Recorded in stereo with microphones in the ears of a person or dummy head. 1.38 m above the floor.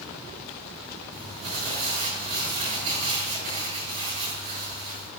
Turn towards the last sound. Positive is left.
turn(degrees=-40)  # may be behind; listen again after turning